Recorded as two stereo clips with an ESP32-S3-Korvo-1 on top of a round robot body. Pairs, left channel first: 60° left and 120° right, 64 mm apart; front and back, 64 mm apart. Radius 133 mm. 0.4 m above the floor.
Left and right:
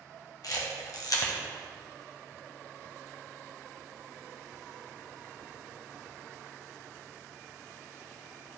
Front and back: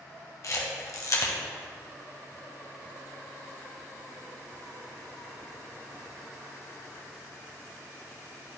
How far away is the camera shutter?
About 1.6 m.